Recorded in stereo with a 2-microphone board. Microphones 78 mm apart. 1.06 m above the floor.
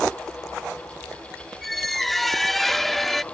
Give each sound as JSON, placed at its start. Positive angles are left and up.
{"t": 1.6, "sound": "a squeak", "side_deg": 0}